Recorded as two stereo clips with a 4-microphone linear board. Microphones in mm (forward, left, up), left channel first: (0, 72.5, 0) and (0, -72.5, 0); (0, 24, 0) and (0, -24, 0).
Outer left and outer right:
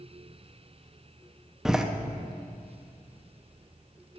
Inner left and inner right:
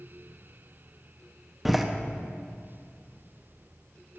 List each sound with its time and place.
1.6 s a door slam: 5° right (ahead or behind), 0.7 m